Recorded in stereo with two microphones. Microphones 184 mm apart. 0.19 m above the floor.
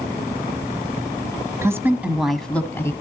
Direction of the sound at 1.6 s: 15° right (ahead or behind).